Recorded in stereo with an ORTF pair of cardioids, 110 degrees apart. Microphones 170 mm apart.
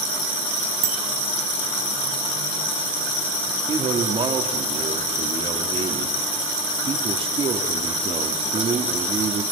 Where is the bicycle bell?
55° right, 2.5 m.